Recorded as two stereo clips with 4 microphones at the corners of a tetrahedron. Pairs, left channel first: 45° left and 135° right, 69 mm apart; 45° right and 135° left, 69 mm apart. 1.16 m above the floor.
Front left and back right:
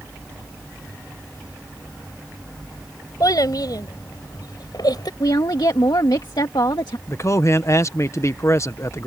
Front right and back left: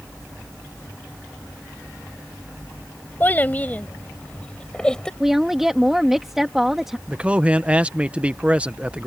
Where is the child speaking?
20° left; by 5.1 s 35° left.